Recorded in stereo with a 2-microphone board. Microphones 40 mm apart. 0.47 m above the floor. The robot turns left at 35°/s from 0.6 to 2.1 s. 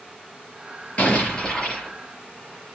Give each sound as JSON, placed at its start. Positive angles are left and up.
{"t": 1.0, "sound": "an explosion", "azimuth_deg": 35, "distance_m": 5.0}